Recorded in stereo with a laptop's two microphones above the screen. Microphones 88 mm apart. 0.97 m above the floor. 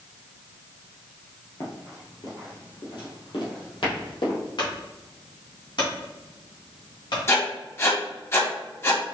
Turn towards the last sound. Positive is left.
turn(degrees=30)  # may be behind; listen again after turning